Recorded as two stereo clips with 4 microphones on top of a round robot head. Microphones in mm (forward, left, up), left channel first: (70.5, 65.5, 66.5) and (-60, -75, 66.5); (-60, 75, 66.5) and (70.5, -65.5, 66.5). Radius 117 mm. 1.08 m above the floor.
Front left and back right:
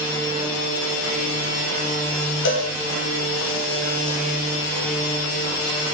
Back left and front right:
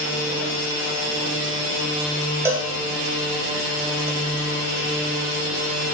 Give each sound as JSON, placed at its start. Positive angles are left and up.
{"t": 2.5, "sound": "a cowbell", "azimuth_deg": 30, "distance_m": 1.5}